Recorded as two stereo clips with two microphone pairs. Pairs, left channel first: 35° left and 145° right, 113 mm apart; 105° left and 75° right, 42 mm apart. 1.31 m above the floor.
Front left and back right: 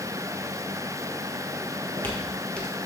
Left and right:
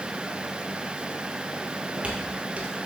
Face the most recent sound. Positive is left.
turn(degrees=-50)